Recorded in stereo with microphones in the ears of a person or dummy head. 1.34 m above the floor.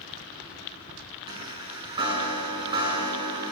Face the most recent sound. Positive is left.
turn(degrees=-20)  # may be behind; listen again after turning